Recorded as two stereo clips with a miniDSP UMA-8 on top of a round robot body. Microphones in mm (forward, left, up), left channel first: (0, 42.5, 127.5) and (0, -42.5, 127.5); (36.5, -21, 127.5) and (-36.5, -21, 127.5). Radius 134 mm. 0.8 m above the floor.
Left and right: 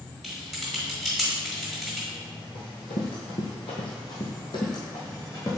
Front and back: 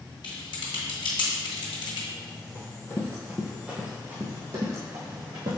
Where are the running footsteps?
60° left, 1.8 m; by 5.6 s 145° left, 2.5 m.